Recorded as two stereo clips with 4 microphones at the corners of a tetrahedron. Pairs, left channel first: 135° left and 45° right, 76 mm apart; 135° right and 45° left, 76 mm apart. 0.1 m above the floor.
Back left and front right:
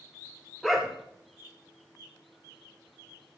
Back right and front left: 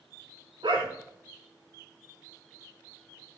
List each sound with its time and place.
0.6 s a dog barking: 45° left, 4 m